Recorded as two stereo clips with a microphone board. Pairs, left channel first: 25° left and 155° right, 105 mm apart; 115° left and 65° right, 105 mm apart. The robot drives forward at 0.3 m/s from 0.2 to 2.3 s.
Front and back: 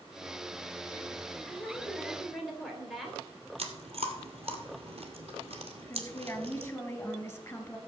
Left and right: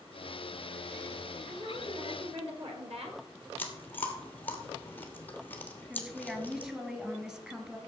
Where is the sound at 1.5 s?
65° right, 3 m; by 3.2 s 70° right, 3 m.